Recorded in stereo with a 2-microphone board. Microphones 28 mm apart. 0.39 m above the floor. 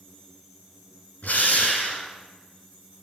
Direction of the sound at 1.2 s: 80° left.